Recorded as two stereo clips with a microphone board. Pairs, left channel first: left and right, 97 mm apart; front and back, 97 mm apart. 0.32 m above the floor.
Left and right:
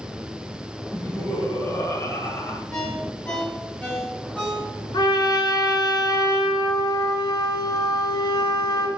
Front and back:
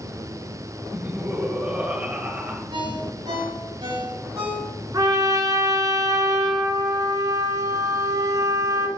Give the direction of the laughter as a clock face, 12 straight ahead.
8 o'clock.